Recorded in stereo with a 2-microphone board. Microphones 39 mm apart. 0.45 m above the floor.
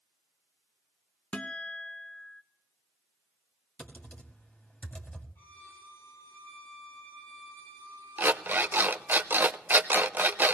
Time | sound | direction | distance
1.3 | a guitar | 35° left (ahead or behind) | 0.7 m
3.8 | typing on a keyboard | 30° left (ahead or behind) | 1.9 m
5.3 | a violin | 65° left (ahead or behind) | 6 m
8.2 | an alarm clock | 55° right (ahead or behind) | 0.6 m